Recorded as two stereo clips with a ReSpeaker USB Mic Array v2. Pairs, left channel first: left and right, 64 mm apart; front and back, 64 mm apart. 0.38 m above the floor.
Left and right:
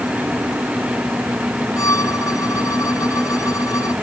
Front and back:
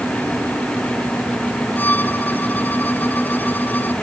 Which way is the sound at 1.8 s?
60° left.